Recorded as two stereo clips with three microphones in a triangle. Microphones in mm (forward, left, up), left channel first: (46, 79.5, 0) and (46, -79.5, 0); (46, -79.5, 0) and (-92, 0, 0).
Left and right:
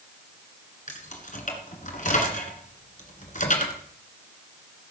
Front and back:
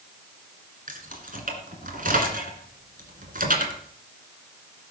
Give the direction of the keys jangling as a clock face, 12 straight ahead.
8 o'clock.